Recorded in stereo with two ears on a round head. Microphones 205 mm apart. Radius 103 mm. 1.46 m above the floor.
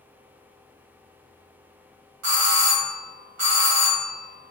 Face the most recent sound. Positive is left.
turn(degrees=-75)  # may be behind; listen again after turning